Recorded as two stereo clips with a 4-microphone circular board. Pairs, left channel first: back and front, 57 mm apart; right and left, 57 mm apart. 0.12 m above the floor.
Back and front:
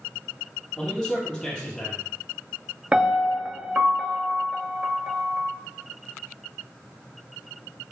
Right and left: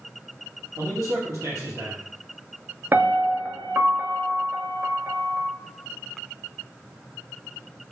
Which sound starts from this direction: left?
A man speaking, at 0.8 s.